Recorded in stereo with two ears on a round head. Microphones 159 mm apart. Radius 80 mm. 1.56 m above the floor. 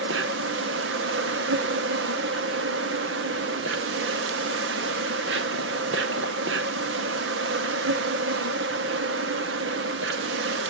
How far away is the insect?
About 0.9 m.